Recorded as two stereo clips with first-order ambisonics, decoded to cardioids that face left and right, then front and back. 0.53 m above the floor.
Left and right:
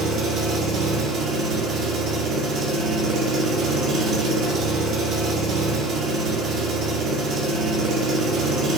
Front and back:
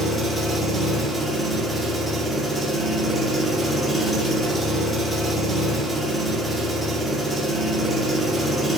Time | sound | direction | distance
0.0 | an engine running | 75° right | 0.9 m